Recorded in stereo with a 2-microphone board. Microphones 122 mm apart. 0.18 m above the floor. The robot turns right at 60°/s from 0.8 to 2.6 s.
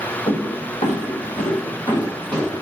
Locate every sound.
0.3 s footsteps: 50° left (ahead or behind), 1.7 m; by 2.6 s 10° right (ahead or behind), 3 m